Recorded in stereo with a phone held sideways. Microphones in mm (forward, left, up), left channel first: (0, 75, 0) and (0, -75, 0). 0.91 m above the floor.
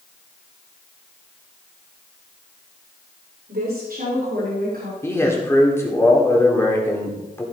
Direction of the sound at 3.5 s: 75° right (ahead or behind).